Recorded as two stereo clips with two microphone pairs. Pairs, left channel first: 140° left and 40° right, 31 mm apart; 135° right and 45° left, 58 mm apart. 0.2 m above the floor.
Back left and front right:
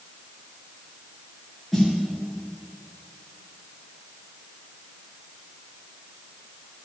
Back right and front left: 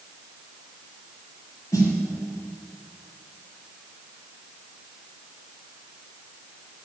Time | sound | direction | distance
1.7 | a snare drum | 135° right | 3.5 m